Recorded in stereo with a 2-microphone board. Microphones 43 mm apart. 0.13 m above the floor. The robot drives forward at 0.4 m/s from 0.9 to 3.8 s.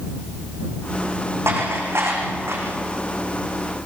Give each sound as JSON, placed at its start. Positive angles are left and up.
{"t": 1.5, "sound": "dishes clattering", "side_deg": -80, "distance_m": 5.5}